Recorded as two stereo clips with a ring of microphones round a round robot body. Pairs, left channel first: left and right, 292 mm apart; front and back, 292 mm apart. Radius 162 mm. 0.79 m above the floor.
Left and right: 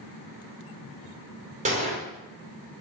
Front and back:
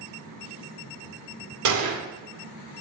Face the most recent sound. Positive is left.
turn(degrees=-160)